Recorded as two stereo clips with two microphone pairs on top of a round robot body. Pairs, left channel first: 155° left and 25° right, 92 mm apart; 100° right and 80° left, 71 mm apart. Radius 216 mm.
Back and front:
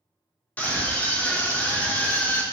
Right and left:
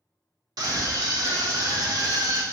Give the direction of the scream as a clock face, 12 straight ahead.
9 o'clock.